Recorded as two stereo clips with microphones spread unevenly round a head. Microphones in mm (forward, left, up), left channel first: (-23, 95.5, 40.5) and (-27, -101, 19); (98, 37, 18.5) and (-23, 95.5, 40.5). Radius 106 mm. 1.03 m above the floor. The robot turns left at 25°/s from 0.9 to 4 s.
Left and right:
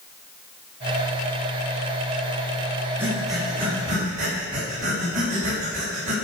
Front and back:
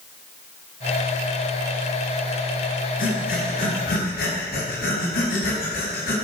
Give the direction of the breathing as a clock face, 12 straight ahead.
12 o'clock.